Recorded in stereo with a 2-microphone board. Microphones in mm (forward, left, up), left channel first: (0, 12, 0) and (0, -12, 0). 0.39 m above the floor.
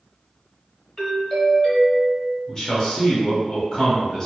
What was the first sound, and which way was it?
A doorbell, 20° left (ahead or behind).